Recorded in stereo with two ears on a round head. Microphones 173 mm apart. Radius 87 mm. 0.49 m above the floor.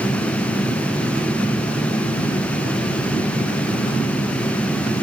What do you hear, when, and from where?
Only background noise.